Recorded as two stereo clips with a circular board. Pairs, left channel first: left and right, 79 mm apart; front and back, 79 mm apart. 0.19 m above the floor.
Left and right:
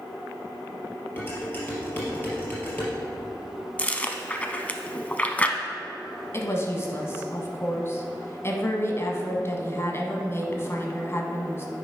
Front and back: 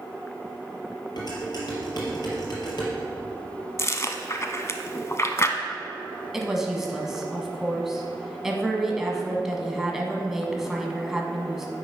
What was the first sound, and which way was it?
Dishes clattering, 30° left.